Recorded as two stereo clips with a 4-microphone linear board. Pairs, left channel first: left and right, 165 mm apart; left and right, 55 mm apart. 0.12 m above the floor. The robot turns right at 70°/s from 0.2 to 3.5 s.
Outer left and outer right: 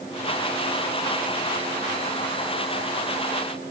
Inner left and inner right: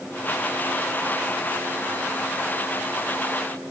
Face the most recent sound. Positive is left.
No sound to turn to.